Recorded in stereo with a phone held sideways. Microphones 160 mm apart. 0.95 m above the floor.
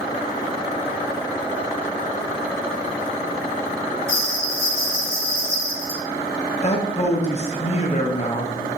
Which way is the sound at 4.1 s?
15° right (ahead or behind).